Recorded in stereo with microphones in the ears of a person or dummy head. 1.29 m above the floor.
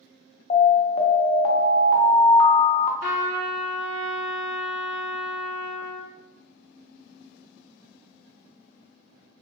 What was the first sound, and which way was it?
An alarm, 40° left (ahead or behind).